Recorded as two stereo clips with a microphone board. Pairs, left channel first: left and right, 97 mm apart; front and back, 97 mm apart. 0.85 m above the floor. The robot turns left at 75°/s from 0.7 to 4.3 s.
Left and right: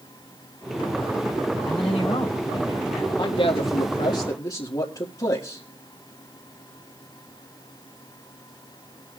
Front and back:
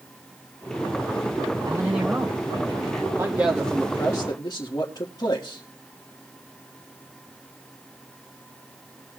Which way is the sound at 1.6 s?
125° left.